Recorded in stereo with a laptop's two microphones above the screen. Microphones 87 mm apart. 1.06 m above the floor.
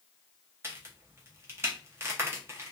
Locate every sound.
0.6 s a crack: 30° right (ahead or behind), 0.7 m